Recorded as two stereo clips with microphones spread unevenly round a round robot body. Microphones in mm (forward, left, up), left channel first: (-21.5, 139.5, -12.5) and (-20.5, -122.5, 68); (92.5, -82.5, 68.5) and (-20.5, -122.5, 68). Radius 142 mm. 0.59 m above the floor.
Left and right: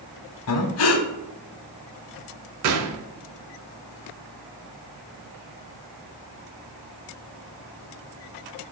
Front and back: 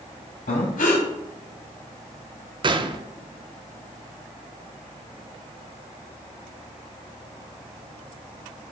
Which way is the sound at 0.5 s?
50° left.